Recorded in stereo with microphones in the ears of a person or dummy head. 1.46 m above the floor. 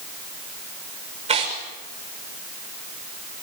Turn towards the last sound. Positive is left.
turn(degrees=-30)  # may be behind; listen again after turning